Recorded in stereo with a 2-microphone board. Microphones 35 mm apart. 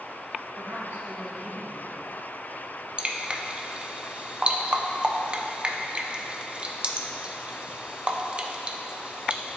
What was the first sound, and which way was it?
A woman speaking, 75° right (ahead or behind).